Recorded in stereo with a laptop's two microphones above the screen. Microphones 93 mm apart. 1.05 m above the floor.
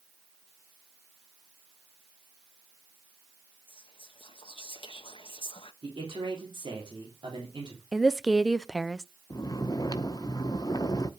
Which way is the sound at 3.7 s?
65° left (ahead or behind).